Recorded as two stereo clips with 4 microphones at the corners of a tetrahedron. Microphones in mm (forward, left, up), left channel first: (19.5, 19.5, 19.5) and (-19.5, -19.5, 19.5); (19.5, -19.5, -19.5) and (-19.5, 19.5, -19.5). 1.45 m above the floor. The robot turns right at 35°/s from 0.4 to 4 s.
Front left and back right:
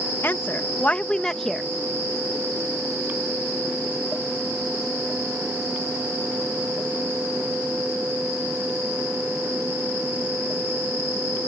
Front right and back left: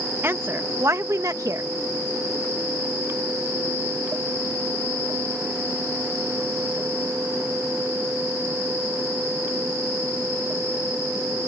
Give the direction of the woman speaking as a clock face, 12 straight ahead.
9 o'clock.